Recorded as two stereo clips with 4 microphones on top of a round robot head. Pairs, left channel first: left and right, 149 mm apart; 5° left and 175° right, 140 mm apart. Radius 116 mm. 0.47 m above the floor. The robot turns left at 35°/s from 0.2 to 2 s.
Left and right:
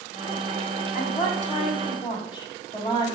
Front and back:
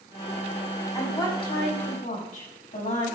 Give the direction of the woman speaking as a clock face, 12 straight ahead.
10 o'clock.